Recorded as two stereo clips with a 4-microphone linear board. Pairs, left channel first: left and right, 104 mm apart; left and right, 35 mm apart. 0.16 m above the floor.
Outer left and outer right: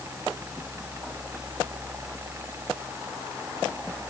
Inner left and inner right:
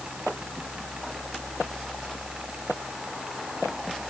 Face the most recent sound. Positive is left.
No sound to turn to.